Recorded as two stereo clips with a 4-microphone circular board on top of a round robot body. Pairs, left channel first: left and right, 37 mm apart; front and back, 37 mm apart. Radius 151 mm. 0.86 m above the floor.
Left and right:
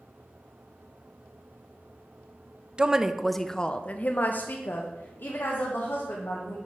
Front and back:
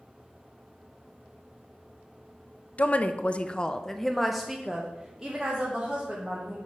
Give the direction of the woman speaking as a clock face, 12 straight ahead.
1 o'clock.